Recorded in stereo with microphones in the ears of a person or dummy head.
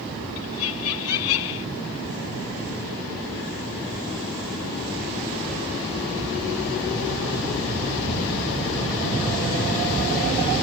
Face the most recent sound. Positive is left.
turn(degrees=80)